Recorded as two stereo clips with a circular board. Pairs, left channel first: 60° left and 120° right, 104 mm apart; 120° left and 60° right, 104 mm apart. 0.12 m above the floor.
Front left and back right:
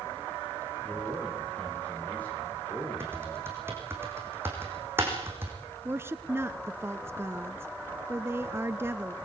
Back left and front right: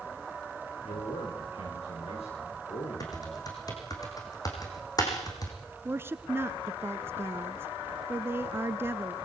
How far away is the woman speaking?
About 1.2 m.